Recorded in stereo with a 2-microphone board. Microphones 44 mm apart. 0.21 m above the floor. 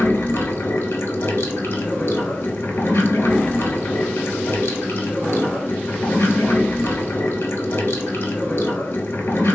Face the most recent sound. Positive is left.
turn(degrees=65)  # may be behind; listen again after turning